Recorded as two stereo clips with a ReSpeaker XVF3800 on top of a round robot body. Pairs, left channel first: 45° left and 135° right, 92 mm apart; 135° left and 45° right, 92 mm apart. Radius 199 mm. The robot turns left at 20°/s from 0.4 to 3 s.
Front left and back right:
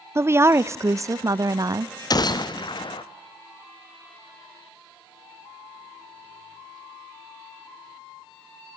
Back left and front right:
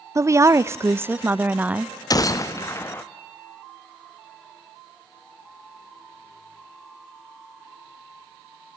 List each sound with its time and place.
0.1 s a woman speaking: 85° right, 0.7 m; by 1.9 s 120° right, 0.7 m
2.1 s a gunshot: 90° left, 1.1 m; by 3.0 s 70° left, 1.1 m